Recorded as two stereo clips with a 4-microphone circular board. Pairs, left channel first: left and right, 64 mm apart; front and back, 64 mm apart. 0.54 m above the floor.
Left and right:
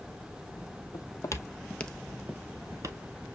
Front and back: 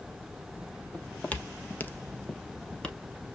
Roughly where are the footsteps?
Left.